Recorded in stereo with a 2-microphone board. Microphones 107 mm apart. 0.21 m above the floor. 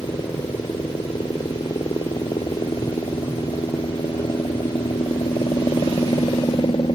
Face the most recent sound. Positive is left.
turn(degrees=50)  # may be behind; listen again after turning